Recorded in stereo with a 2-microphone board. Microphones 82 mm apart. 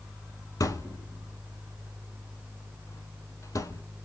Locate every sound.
0.6 s a thud: 40° left (ahead or behind), 0.8 m